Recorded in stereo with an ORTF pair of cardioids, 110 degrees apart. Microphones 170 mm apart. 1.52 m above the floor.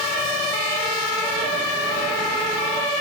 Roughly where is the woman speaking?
I don't hear a woman speaking.